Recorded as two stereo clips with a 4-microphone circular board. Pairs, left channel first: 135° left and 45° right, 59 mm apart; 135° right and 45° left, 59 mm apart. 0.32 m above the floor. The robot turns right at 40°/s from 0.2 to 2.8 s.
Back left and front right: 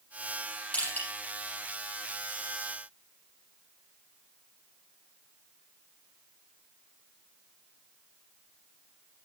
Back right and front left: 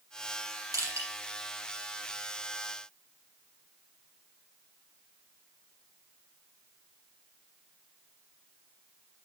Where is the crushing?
70° left, 6.5 m; by 1.1 s 85° left, 6.5 m.